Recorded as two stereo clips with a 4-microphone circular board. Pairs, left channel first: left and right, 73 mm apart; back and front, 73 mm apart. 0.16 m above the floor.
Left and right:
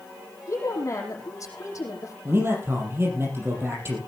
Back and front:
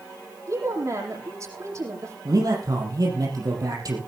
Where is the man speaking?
35° right, 5.5 m.